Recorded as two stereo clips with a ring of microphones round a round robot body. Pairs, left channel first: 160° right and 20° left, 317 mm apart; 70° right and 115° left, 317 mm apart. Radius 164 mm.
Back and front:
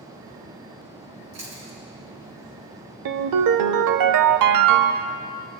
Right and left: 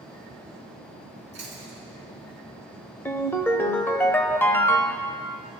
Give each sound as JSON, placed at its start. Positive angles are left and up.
{"t": 1.3, "sound": "chewing", "azimuth_deg": 45, "distance_m": 3.5}
{"t": 3.0, "sound": "a ringtone", "azimuth_deg": 15, "distance_m": 0.5}